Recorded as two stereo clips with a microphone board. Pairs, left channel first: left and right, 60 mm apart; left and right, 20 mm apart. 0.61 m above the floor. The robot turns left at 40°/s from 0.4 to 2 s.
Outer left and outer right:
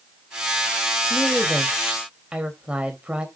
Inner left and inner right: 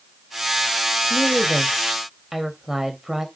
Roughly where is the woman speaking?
Ahead.